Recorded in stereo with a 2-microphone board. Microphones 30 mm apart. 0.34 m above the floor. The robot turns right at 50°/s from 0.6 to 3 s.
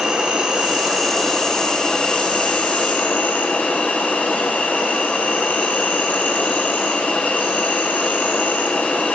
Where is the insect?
30° right, 2.5 m; by 9.2 s 90° left, 2.5 m.